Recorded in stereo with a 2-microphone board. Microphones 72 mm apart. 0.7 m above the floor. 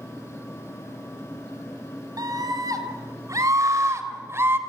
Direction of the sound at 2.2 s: 60° right (ahead or behind).